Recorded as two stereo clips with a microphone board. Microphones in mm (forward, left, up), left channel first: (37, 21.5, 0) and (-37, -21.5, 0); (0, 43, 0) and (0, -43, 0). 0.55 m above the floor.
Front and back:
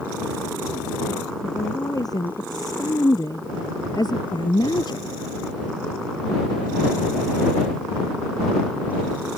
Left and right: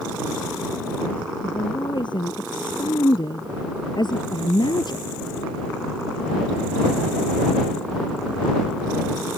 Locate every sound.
1.4 s a woman speaking: 70° left; by 5.1 s 60° left